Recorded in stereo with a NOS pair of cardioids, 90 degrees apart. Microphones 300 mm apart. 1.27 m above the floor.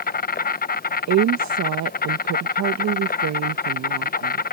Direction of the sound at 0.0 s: 30° left.